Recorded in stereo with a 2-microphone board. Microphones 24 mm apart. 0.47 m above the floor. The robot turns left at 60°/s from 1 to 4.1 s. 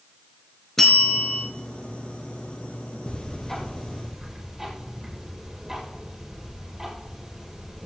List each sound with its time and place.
0.8 s a bell: 10° left (ahead or behind), 3.5 m; by 1.4 s 40° left (ahead or behind), 3.5 m
3.1 s ticking: 45° left, 5 m; by 7.9 s 15° right, 5 m